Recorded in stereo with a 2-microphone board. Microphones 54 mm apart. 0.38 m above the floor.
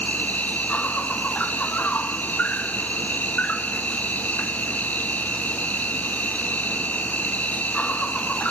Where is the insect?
25° left (ahead or behind), 0.8 m.